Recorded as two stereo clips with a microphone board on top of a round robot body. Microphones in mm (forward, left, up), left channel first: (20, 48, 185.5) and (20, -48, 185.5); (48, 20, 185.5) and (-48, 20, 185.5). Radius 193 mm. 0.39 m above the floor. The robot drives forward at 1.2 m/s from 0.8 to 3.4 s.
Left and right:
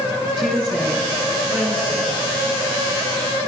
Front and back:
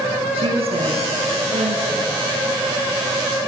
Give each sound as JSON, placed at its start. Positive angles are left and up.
{"t": 0.3, "sound": "a woman speaking", "azimuth_deg": -165, "distance_m": 5.0}